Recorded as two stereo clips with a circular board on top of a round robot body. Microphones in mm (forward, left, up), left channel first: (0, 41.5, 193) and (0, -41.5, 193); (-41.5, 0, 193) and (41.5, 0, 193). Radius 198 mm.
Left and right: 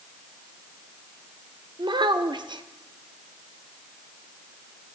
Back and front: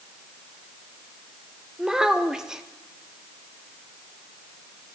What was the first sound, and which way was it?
A child speaking, 80° right.